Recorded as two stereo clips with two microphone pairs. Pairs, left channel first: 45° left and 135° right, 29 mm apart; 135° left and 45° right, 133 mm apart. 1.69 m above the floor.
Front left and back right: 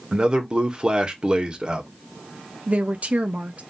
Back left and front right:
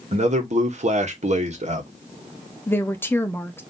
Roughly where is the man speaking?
Right.